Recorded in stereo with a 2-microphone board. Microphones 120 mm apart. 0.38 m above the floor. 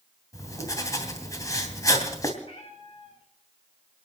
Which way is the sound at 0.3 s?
30° left (ahead or behind).